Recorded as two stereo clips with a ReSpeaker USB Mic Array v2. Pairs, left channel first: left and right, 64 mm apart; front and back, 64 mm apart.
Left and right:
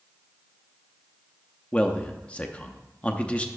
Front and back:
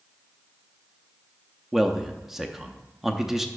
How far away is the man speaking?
About 0.6 m.